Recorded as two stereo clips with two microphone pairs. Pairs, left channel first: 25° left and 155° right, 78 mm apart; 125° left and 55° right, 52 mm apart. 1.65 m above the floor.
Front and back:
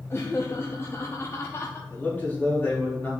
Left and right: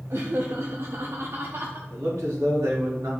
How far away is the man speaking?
About 3.5 m.